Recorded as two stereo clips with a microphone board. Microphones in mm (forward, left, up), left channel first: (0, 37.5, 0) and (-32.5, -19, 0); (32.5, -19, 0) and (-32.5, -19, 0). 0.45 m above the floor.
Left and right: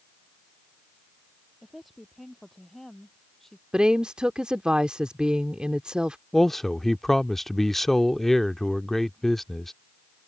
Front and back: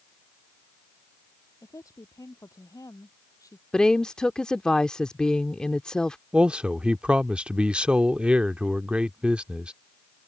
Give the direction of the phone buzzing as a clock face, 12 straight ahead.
No phone buzzing in this recording.